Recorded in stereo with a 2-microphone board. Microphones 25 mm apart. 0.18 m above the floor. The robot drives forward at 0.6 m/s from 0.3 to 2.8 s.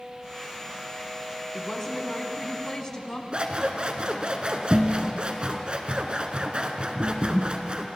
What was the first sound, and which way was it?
A woman speaking, 25° left (ahead or behind).